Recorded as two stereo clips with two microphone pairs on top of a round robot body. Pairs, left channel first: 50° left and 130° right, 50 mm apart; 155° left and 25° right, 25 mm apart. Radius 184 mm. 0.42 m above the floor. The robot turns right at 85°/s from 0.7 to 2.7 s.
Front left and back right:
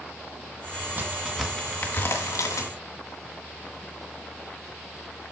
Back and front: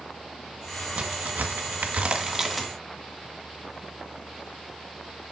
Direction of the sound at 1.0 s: 75° right.